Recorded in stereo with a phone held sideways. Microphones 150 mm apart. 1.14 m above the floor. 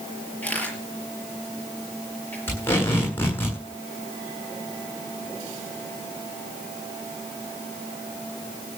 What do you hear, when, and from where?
0.4 s a camera shutter: 10° left (ahead or behind), 6 m
2.5 s tape being pulled: 15° left (ahead or behind), 9.5 m